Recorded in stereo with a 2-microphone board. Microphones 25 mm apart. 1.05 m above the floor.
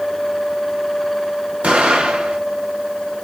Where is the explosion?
75° right (ahead or behind), 1.3 m.